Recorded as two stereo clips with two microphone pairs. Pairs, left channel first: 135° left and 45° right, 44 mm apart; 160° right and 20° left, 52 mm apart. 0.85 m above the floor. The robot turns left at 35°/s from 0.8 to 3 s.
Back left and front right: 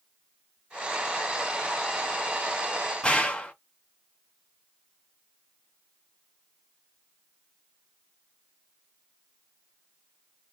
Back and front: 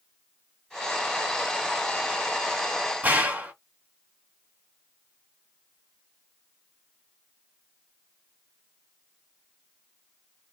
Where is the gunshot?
70° left, 1.7 m.